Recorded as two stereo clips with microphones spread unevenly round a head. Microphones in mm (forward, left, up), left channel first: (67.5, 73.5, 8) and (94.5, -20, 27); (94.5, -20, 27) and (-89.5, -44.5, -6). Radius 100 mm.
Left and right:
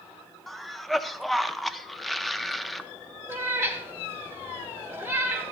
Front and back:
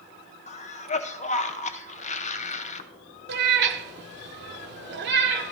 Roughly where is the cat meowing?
Behind right.